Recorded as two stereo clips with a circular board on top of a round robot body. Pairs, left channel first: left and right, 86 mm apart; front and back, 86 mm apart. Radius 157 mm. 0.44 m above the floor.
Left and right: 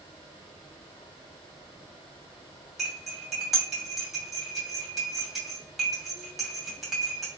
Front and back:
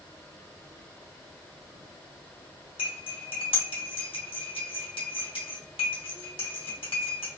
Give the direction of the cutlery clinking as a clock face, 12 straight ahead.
12 o'clock.